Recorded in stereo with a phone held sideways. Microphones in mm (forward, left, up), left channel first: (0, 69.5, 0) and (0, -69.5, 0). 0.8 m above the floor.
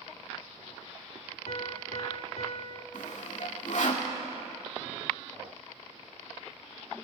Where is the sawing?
70° left (ahead or behind), 2.5 m.